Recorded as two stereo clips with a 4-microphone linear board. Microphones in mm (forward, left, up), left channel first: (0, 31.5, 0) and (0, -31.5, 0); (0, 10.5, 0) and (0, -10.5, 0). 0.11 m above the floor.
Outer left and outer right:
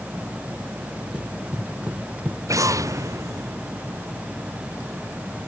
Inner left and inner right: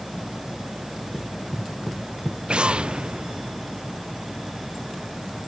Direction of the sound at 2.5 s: 60° right (ahead or behind).